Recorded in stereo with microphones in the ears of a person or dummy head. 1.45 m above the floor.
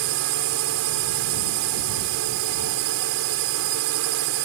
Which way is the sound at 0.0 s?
65° right (ahead or behind).